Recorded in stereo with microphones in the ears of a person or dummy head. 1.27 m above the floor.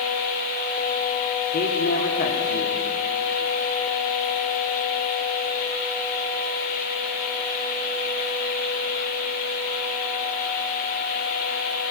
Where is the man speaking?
40° left (ahead or behind), 2.5 m.